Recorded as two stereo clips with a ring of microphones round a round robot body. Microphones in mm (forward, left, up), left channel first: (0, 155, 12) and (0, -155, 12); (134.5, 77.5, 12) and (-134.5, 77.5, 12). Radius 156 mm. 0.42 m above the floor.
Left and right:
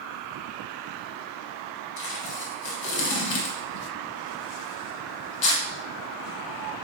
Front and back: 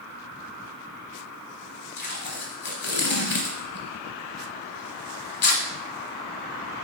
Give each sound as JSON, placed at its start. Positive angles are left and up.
{"t": 2.0, "sound": "tape being pulled", "azimuth_deg": 55, "distance_m": 0.8}